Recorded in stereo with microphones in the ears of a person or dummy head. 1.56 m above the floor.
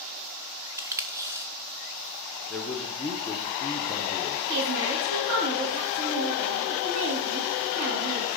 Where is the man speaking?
Centre (ahead or behind), 0.7 m.